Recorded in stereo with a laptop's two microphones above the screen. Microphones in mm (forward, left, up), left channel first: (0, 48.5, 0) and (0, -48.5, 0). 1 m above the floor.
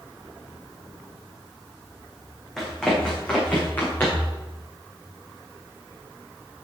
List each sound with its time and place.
2.6 s running footsteps: 5° left (ahead or behind), 4 m; by 4.3 s 20° left (ahead or behind), 6 m